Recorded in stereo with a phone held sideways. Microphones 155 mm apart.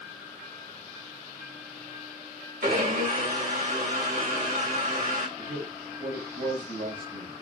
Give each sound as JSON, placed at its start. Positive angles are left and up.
{"t": 2.6, "sound": "a blender", "side_deg": -65, "distance_m": 3.0}
{"t": 5.4, "sound": "a man speaking", "side_deg": -85, "distance_m": 5.0}